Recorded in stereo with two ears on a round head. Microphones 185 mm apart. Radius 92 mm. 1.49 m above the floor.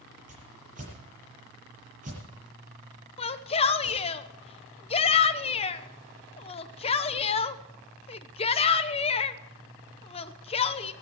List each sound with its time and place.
0.3 s a whoosh: 40° right (ahead or behind), 8 m
3.2 s a shout: 30° left (ahead or behind), 0.9 m